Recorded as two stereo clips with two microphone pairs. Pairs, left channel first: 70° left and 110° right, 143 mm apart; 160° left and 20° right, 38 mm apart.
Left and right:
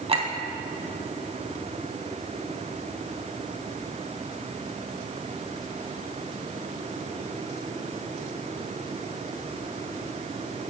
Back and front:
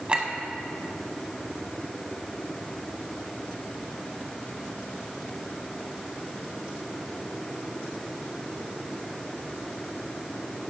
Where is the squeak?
No squeak in this recording.